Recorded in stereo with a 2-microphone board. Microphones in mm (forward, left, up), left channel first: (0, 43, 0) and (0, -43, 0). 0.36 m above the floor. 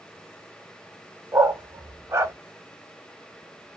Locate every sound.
1.3 s a dog barking: 35° right (ahead or behind), 0.7 m